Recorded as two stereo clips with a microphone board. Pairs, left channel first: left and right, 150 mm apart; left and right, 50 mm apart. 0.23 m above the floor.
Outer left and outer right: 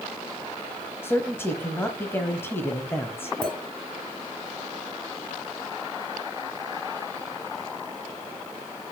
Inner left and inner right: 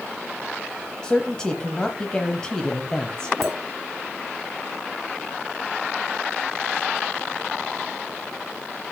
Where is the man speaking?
15° left (ahead or behind), 1.0 m.